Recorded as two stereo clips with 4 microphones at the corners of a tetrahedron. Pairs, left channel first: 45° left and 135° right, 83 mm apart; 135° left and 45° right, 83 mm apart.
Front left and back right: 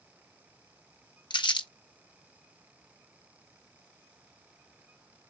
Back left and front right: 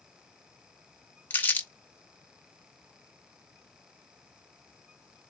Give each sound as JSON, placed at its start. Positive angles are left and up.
{"t": 1.3, "sound": "crumpling", "azimuth_deg": 70, "distance_m": 0.8}